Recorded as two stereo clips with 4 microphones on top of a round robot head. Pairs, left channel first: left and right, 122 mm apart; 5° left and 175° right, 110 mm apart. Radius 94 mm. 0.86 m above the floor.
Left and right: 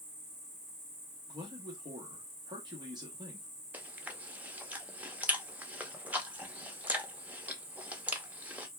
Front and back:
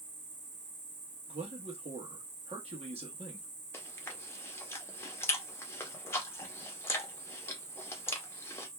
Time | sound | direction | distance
0.0 | an insect | 140° right | 1.0 m
1.3 | a man speaking | 150° right | 1.1 m
3.7 | chewing | 25° right | 0.8 m